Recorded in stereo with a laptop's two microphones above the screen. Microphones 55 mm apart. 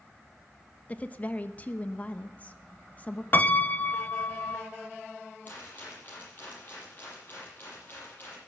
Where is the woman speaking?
30° left (ahead or behind), 1.0 m.